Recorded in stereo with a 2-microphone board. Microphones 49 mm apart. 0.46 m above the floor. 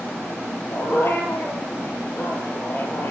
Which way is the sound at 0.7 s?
45° left (ahead or behind).